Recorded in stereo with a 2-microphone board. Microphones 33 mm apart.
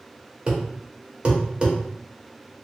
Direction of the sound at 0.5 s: 35° right (ahead or behind).